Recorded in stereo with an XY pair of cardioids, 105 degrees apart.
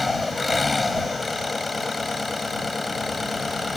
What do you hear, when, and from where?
0.0 s an engine running: 20° left